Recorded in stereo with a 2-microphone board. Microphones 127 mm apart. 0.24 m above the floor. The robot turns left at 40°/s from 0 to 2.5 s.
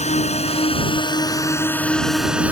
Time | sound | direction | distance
0.0 | a drone | 60° left (ahead or behind) | ?